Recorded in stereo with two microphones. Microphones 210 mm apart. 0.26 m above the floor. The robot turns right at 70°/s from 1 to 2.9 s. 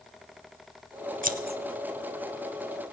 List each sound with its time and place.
1.2 s scissors: 40° right (ahead or behind), 0.8 m; by 1.6 s 50° right (ahead or behind), 0.8 m